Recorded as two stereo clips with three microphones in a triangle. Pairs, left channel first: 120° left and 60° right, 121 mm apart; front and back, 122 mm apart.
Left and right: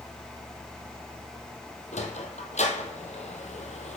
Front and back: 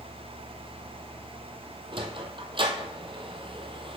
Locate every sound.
1.9 s a sliding door: 135° left, 1.1 m